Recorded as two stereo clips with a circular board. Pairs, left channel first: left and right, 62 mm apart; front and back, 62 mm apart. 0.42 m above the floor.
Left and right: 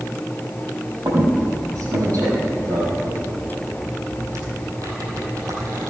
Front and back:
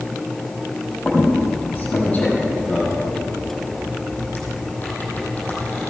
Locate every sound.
1.1 s a squeak: 65° right, 5 m